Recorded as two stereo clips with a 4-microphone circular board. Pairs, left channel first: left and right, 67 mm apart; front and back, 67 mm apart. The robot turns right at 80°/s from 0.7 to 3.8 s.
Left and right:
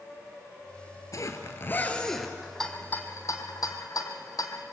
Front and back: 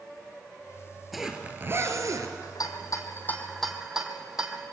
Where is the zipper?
90° left, 2 m; by 2.3 s 170° right, 2 m.